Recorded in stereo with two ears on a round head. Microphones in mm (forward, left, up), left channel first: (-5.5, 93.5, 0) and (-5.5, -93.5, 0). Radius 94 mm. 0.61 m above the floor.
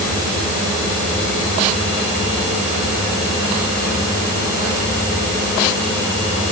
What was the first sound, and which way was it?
Only background noise.